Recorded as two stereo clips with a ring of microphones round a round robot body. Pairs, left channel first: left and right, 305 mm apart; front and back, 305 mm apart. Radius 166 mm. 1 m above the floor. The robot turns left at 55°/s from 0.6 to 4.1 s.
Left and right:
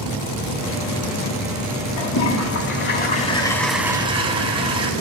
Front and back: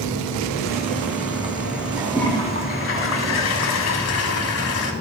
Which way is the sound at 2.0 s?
95° left.